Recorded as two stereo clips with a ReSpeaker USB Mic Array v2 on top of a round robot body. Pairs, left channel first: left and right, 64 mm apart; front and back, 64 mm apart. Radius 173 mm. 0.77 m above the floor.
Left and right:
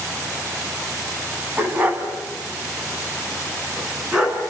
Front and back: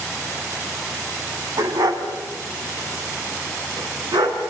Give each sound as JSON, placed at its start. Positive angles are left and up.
{"t": 1.6, "sound": "a dog barking", "azimuth_deg": -155, "distance_m": 3.0}